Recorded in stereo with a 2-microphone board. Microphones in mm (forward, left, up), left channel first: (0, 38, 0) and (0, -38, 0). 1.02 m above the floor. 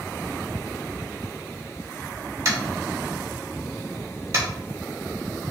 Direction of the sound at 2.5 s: 40° right (ahead or behind).